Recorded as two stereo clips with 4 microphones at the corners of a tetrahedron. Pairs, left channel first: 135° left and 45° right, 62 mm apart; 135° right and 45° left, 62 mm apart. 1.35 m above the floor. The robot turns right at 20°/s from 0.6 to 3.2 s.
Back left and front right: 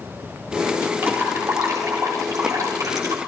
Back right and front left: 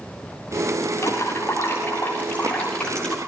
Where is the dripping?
100° right, 6.5 m; by 3.2 s 55° right, 6.5 m.